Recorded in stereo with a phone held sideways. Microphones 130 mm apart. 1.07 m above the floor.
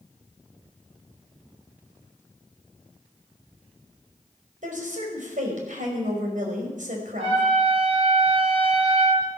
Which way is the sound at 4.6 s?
85° right.